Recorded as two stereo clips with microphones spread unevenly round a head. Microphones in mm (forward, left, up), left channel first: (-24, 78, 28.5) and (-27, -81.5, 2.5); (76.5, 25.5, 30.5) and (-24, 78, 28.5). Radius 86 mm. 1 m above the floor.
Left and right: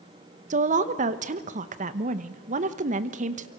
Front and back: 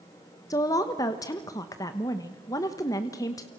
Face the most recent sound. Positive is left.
turn(degrees=-85)